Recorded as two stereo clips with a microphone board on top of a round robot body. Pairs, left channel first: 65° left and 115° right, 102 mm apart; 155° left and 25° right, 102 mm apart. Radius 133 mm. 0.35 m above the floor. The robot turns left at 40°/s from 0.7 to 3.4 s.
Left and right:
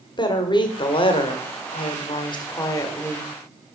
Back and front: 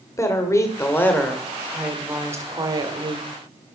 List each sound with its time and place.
0.2 s a woman speaking: 100° left, 1.4 m; by 3.3 s 5° right, 1.4 m